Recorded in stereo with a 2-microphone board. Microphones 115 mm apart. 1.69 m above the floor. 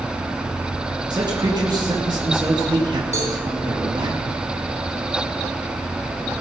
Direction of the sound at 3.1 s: 75° left (ahead or behind).